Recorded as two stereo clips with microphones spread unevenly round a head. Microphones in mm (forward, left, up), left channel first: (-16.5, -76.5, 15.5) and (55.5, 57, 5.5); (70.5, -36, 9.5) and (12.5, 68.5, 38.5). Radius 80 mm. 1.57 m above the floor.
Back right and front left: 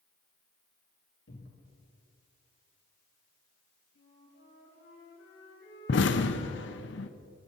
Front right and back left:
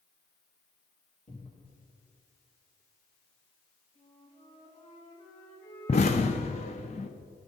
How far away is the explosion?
About 0.8 m.